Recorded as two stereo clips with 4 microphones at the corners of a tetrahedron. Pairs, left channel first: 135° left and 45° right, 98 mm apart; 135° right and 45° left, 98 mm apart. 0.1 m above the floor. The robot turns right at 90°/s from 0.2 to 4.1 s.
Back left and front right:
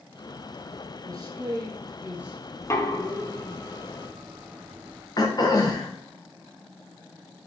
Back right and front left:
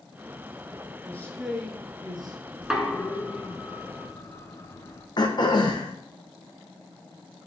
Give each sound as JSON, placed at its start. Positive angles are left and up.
{"t": 1.1, "sound": "a man speaking", "azimuth_deg": -80, "distance_m": 1.8}
{"t": 2.6, "sound": "knocking", "azimuth_deg": 110, "distance_m": 1.0}
{"t": 5.2, "sound": "throat clearing", "azimuth_deg": 180, "distance_m": 1.7}